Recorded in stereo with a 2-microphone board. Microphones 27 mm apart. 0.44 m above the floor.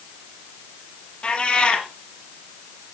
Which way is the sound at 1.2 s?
40° left (ahead or behind).